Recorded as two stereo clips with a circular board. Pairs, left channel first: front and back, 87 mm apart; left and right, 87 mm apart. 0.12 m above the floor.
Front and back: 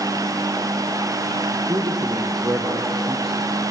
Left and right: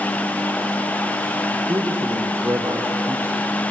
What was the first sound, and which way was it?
A man speaking, 145° right.